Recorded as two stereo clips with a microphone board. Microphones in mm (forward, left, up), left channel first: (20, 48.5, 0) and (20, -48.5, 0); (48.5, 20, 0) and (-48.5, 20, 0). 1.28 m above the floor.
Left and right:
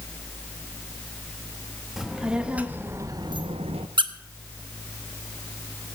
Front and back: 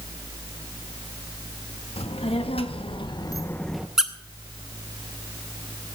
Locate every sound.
2.0 s a child speaking: 5° right, 1.8 m; by 3.9 s 100° right, 0.8 m
4.0 s a squeak: 95° right, 0.9 m